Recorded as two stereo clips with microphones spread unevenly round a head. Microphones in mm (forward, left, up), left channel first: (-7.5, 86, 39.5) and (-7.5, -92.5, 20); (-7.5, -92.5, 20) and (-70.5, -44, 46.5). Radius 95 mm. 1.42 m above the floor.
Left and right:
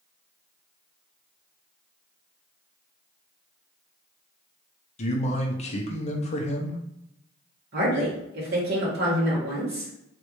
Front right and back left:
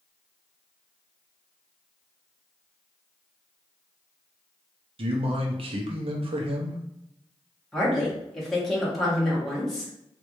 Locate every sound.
5.0 s a man speaking: 150° left, 0.8 m
7.7 s a woman speaking: 120° right, 1.6 m